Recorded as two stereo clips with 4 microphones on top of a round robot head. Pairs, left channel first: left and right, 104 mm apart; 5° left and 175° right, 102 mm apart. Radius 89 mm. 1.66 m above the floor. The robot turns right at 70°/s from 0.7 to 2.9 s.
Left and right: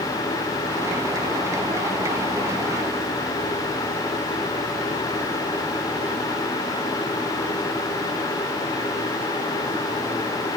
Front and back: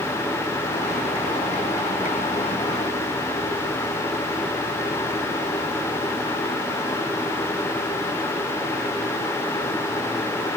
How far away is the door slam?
I don't hear a door slam.